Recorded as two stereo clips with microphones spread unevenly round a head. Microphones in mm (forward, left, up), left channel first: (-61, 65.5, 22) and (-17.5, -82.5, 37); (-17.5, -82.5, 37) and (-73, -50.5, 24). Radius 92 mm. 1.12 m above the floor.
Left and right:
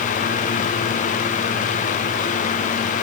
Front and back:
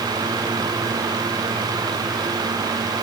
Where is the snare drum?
No snare drum in this recording.